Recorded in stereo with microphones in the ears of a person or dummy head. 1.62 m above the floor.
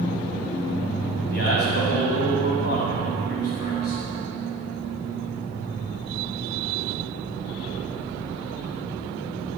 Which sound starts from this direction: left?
A man speaking, at 1.3 s.